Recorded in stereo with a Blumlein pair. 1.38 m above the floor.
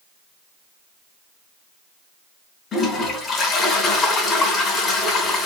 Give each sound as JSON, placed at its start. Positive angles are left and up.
{"t": 2.7, "sound": "a toilet flushing", "azimuth_deg": 20, "distance_m": 3.5}